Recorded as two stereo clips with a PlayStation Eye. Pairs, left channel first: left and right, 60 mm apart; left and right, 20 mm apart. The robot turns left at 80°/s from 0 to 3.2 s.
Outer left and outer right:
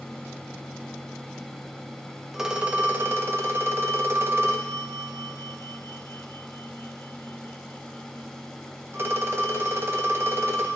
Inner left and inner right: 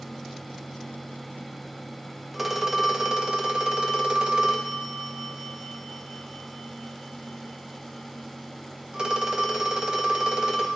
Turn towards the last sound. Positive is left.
turn(degrees=-75)